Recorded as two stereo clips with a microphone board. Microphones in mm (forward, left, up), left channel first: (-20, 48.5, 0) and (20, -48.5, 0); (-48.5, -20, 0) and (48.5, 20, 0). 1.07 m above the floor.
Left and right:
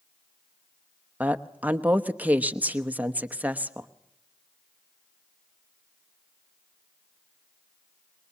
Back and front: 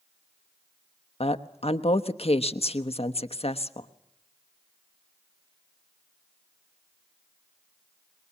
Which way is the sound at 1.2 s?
140° right.